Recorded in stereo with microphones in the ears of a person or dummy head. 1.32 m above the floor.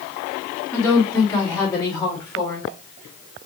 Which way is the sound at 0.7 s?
15° left (ahead or behind).